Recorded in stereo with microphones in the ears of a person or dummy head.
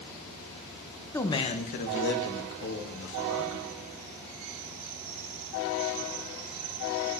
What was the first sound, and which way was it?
A man speaking, 15° left (ahead or behind).